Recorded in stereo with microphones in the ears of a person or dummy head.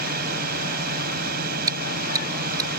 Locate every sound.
0.0 s a drone: 55° right (ahead or behind)
1.7 s chewing: 25° right (ahead or behind)